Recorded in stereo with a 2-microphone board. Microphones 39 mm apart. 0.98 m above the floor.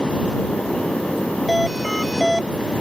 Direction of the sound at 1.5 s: Centre (ahead or behind).